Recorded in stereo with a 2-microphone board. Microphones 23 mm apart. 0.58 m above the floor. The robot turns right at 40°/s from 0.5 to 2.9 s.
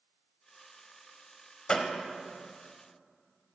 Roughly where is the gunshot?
Left.